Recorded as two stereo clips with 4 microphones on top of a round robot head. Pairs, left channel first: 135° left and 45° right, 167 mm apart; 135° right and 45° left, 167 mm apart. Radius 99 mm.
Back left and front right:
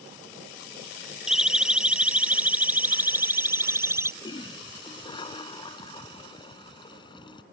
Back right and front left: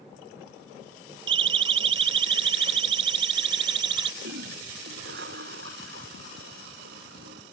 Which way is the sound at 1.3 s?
45° left.